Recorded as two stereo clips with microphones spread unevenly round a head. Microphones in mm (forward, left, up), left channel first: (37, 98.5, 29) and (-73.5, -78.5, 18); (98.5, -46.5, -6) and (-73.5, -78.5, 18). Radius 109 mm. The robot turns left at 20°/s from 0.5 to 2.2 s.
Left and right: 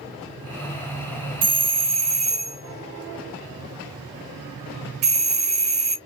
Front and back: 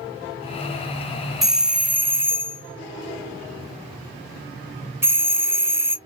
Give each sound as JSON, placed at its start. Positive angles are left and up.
{"t": 1.4, "sound": "a doorbell", "azimuth_deg": -75, "distance_m": 0.6}